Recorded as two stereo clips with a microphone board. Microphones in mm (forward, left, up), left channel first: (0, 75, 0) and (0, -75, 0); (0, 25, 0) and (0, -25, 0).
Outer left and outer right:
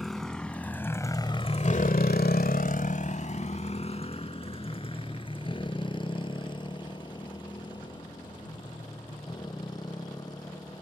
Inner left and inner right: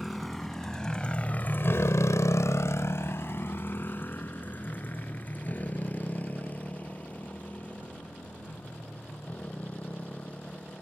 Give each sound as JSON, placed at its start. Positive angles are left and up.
{"t": 0.0, "sound": "a motorcycle", "side_deg": 0}